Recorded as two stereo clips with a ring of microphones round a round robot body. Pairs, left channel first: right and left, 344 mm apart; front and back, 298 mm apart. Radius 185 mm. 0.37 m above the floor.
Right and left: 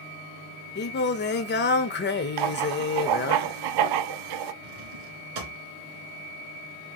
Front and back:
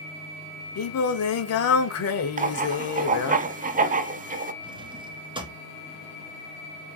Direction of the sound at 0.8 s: 30° right.